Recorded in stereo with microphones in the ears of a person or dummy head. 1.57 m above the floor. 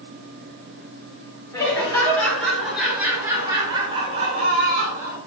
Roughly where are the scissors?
No scissors in this recording.